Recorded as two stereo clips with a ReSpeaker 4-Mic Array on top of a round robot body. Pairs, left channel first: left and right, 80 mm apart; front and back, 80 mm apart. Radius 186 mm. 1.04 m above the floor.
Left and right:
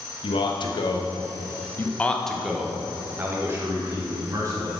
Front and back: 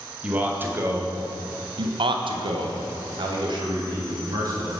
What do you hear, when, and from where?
0.2 s a man speaking: 105° left, 1.3 m; by 4.8 s 140° right, 2 m